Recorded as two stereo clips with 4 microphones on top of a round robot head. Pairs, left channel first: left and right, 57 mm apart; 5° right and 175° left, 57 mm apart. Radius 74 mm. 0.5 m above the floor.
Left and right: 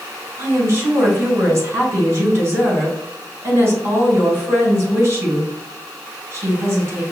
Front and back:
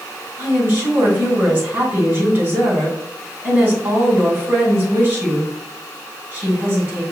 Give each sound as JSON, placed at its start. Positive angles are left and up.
{"t": 0.4, "sound": "a woman speaking", "azimuth_deg": -130, "distance_m": 2.5}